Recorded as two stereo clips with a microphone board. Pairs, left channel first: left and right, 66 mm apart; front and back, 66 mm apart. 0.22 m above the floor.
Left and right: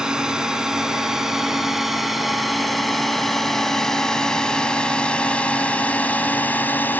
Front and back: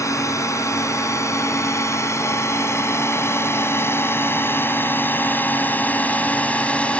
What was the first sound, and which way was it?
A drone, 15° right.